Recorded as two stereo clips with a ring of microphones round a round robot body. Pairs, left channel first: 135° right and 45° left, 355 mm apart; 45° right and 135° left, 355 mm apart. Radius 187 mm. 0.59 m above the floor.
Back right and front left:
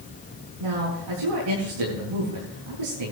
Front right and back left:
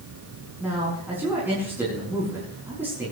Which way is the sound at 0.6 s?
50° left.